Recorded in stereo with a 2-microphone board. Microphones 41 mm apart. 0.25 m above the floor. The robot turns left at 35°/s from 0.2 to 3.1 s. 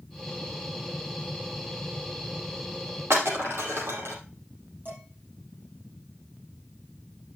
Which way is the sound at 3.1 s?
70° right (ahead or behind).